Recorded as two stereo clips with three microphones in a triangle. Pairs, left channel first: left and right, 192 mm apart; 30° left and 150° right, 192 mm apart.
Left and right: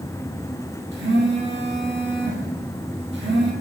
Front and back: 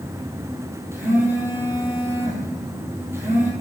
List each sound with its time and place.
0.9 s a phone buzzing: 75° right, 2.5 m